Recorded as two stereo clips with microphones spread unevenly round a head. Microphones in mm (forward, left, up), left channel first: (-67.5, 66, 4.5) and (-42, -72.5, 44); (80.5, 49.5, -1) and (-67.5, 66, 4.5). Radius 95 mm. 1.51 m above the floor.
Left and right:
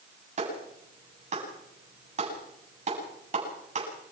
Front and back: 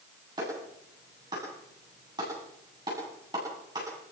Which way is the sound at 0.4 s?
115° right.